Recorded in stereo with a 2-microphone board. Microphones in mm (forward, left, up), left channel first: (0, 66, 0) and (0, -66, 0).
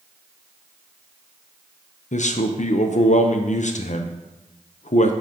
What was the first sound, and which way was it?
A man speaking, 60° left (ahead or behind).